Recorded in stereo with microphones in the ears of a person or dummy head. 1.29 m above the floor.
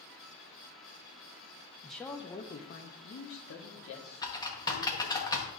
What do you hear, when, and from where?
1.8 s a man speaking: 5° right (ahead or behind), 0.6 m; by 5.2 s 80° left, 2 m
4.2 s typing on a keyboard: 20° left (ahead or behind), 1.1 m